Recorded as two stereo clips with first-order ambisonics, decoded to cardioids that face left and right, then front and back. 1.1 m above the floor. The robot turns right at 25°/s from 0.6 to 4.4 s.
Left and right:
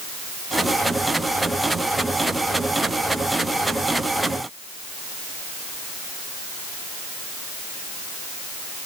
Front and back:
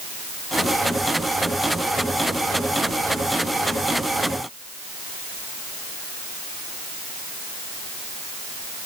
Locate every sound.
Only background noise.